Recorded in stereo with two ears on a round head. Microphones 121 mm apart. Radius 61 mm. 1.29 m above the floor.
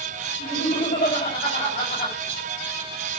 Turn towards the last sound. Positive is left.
turn(degrees=35)  # may be behind; listen again after turning